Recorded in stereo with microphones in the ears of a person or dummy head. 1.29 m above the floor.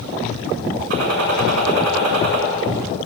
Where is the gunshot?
65° right (ahead or behind), 7 m.